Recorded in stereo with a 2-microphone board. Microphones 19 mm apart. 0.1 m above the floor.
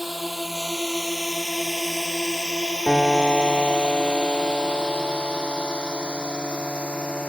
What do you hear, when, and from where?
0.0 s a drone: 5° right (ahead or behind); by 7.3 s 60° left (ahead or behind)
2.9 s a piano: 45° right (ahead or behind)